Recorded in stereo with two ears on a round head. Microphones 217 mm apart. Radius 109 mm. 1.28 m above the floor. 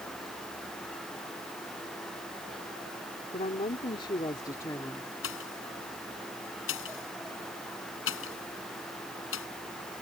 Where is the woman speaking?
30° left (ahead or behind); by 5.1 s 10° left (ahead or behind).